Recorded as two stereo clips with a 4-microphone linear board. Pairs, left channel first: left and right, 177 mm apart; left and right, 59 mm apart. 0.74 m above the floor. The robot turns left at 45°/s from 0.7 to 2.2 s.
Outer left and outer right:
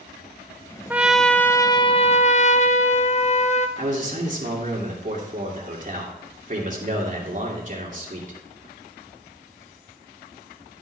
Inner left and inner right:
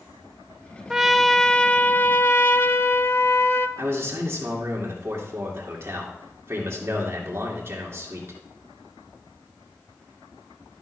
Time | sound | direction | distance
0.9 | a trumpet | 170° right | 0.5 m
3.8 | a man speaking | 45° right (ahead or behind) | 2.5 m